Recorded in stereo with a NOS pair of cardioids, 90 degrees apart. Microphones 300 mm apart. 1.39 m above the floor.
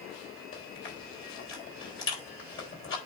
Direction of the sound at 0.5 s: 45° left.